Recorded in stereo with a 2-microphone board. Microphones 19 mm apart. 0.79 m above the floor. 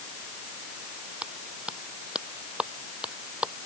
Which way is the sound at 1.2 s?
85° right.